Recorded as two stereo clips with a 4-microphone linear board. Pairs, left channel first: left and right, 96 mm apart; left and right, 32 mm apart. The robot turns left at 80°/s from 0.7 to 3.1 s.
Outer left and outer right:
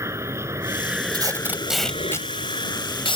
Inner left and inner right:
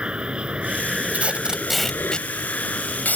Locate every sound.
0.0 s an aircraft: 150° right; by 3.2 s 20° left
1.1 s tape being pulled: 50° right (ahead or behind); by 3.2 s 60° left (ahead or behind)